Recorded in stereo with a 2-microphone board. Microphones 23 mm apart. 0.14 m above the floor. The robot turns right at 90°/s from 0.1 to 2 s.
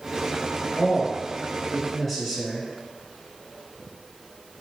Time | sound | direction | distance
0.8 | a man speaking | 25° left (ahead or behind) | 1.5 m